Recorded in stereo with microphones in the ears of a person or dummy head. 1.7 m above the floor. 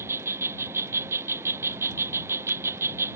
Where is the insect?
10° right (ahead or behind).